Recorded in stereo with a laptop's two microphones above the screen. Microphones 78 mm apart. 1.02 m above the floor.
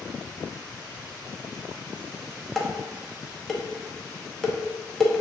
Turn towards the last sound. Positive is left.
turn(degrees=5)  # may be behind; listen again after turning